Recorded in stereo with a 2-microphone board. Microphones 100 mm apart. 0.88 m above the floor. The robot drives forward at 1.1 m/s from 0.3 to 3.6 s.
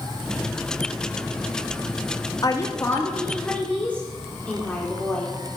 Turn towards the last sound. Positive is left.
turn(degrees=15)  # may be behind; listen again after turning